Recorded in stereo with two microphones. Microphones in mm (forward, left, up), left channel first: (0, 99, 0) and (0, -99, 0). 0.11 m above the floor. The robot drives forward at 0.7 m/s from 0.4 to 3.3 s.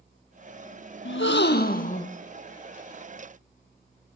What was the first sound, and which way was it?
A gasp, 80° left.